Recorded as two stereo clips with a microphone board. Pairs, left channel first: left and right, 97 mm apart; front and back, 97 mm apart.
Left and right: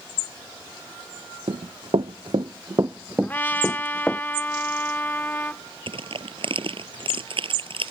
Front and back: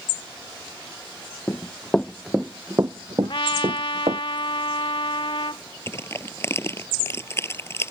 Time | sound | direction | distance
1.5 | running footsteps | 65° right | ?
3.2 | a trumpet | 20° left | ?
5.9 | crushing | 65° right | ?